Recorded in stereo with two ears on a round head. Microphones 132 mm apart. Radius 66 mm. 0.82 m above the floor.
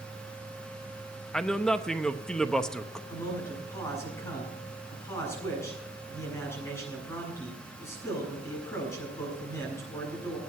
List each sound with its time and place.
1.3 s a man speaking: 5° left (ahead or behind), 0.8 m
3.1 s a man speaking: 20° left (ahead or behind), 7.5 m